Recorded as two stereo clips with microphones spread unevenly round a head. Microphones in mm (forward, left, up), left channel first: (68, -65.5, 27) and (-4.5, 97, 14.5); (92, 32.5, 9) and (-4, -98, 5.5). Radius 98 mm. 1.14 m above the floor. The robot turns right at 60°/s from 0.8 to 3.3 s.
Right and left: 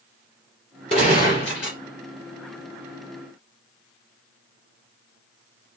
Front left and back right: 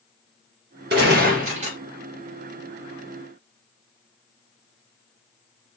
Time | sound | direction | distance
0.9 | a gunshot | 125° right | 2 m